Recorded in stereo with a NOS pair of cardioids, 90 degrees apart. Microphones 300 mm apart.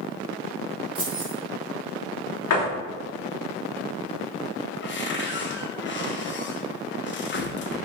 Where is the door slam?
65° left, 2.5 m.